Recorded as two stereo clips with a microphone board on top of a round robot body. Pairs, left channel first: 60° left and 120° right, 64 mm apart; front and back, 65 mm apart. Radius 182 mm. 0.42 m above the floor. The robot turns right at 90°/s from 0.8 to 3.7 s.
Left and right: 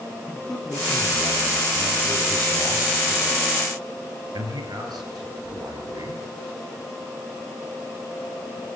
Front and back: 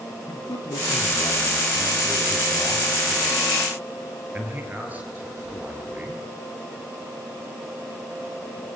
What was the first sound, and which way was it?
A man speaking, 15° right.